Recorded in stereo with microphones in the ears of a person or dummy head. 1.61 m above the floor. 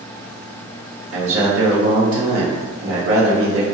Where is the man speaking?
80° right, 1.4 m.